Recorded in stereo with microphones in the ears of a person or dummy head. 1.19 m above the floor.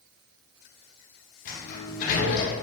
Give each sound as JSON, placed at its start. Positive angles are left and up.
{"t": 1.4, "sound": "a sliding door", "side_deg": 45, "distance_m": 0.6}